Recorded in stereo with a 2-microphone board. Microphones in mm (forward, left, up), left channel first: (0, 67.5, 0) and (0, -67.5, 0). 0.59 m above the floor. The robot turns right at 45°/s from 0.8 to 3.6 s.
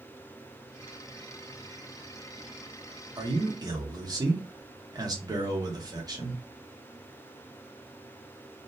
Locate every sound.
3.2 s a man speaking: 30° right (ahead or behind), 1.0 m